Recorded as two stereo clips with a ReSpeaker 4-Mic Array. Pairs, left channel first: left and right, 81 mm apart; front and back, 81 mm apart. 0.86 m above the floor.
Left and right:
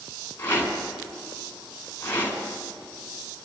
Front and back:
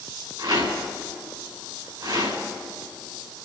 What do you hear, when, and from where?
0.4 s a rattle: 155° left, 4 m